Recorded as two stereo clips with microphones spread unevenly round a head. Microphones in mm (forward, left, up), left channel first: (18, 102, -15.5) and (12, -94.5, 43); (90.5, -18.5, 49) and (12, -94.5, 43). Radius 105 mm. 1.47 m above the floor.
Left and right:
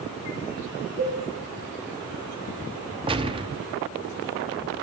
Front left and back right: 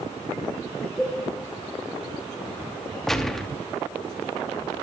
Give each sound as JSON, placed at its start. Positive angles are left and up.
{"t": 1.0, "sound": "a cowbell", "azimuth_deg": -50, "distance_m": 4.0}
{"t": 3.1, "sound": "a gunshot", "azimuth_deg": -40, "distance_m": 1.4}